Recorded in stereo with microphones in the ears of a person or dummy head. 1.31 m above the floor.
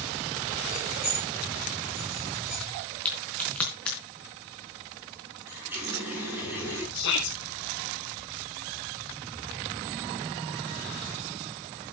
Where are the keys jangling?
10° right (ahead or behind), 3.5 m; by 2.6 s 5° right (ahead or behind), 2 m.